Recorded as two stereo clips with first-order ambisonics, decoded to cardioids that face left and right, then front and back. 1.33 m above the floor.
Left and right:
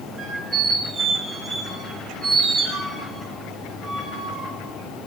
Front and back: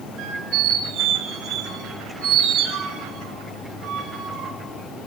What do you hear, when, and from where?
0.2 s a squeak: 150° right, 2.5 m